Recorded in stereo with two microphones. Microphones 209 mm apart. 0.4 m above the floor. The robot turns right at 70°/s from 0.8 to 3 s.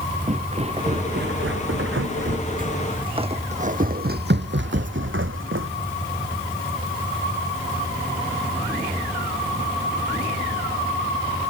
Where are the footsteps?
35° right (ahead or behind); by 5.7 s 75° right (ahead or behind).